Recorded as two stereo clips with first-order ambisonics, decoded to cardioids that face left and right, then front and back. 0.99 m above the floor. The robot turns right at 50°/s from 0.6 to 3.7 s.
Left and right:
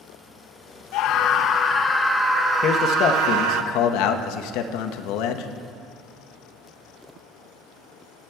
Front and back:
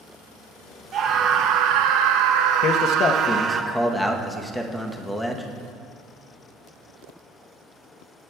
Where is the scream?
120° left, 0.5 m; by 3.6 s 105° right, 0.5 m.